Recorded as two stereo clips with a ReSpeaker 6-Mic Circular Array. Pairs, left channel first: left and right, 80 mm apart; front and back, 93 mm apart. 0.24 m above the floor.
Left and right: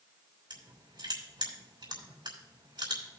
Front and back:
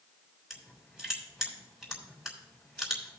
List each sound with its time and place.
0.5 s crushing: 90° right, 3.5 m